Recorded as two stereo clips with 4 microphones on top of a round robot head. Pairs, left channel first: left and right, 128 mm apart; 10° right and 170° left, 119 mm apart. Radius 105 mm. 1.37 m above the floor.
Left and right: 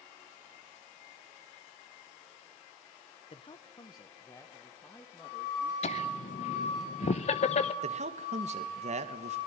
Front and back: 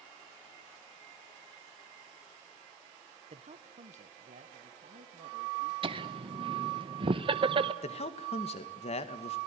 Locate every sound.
3.3 s a man speaking: 135° left, 1.1 m; by 5.7 s 170° left, 3 m
5.8 s laughter: 125° left, 0.9 m
7.8 s a man speaking: 50° right, 1.9 m